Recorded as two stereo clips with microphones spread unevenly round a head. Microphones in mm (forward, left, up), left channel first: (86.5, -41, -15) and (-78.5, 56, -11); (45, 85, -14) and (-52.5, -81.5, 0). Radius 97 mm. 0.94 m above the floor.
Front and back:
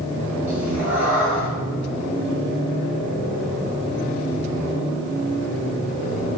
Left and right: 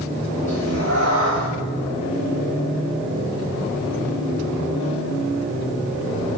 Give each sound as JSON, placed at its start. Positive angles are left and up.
{"t": 0.5, "sound": "a cat meowing", "azimuth_deg": -130, "distance_m": 3.0}